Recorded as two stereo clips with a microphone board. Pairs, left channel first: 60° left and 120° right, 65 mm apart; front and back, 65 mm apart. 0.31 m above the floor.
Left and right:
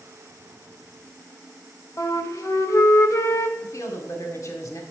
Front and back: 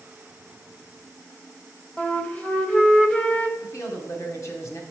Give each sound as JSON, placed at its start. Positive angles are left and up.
{"t": 2.0, "sound": "a flute", "azimuth_deg": 65, "distance_m": 0.9}
{"t": 3.6, "sound": "a woman speaking", "azimuth_deg": 35, "distance_m": 1.7}